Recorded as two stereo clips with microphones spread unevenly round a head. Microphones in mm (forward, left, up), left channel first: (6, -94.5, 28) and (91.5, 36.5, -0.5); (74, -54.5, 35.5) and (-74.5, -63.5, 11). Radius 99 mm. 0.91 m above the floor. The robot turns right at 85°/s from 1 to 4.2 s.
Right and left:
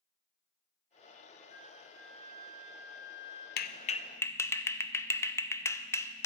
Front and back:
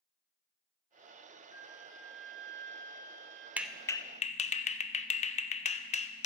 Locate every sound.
1.5 s a flute: 65° left, 4 m; by 3.5 s 130° right, 4 m
3.6 s a clap: 100° right, 0.6 m; by 6.2 s 45° right, 0.6 m